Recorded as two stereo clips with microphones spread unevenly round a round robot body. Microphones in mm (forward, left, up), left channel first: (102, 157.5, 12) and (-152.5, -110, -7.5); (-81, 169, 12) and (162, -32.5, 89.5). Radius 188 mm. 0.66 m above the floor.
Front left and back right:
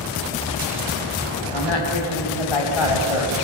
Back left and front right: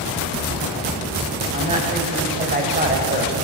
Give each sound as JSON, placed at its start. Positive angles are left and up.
{"t": 1.5, "sound": "a woman speaking", "azimuth_deg": 30, "distance_m": 6.0}